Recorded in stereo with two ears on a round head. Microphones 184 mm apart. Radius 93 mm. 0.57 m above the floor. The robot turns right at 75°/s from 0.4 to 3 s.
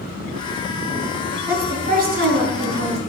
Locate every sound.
1.5 s a woman speaking: 175° right, 3 m; by 3.0 s 60° right, 3 m